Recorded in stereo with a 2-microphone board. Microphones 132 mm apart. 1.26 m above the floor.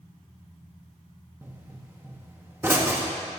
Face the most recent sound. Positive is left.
turn(degrees=-20)  # may be behind; listen again after turning